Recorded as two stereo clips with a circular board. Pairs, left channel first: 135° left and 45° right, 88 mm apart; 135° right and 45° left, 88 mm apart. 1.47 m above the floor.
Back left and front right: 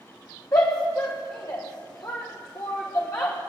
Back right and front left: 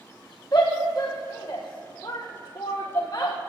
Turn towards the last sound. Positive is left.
turn(degrees=180)